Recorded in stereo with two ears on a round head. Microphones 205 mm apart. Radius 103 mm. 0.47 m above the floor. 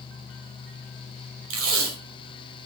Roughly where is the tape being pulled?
Right.